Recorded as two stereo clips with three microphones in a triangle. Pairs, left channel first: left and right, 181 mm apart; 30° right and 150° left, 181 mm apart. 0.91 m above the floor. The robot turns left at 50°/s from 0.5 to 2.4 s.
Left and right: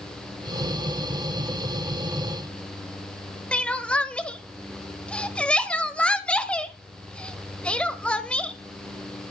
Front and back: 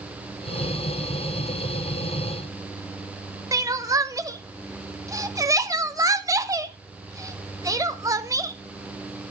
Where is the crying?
160° left, 0.6 m.